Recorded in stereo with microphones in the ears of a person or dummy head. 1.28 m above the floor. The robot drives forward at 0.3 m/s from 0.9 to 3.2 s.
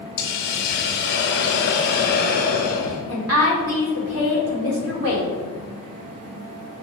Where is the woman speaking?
80° right, 1.6 m.